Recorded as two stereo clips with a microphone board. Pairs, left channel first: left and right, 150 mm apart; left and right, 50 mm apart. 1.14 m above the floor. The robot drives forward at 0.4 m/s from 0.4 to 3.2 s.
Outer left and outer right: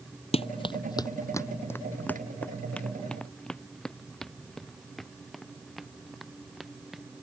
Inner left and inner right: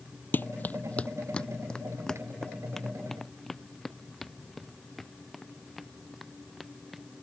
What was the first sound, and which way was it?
Running footsteps, 40° left (ahead or behind).